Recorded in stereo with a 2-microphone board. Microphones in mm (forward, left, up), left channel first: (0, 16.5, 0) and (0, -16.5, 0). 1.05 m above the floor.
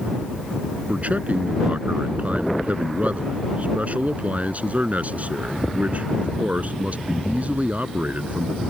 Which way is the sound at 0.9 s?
50° right (ahead or behind).